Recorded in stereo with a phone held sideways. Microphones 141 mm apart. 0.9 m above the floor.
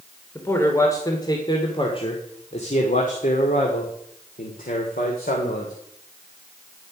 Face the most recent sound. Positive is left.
turn(degrees=80)